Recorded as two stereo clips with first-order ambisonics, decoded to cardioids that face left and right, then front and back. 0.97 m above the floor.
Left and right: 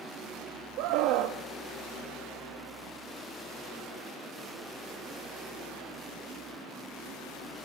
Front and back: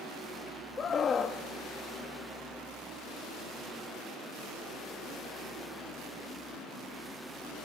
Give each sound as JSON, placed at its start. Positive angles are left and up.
{"t": 0.8, "sound": "a scream", "azimuth_deg": -65, "distance_m": 1.0}